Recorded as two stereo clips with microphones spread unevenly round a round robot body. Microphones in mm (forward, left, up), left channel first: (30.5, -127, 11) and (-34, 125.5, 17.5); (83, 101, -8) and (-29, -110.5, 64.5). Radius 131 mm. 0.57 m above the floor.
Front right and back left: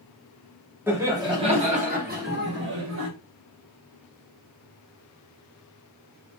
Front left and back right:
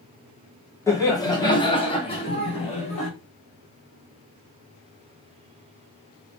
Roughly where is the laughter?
Ahead left.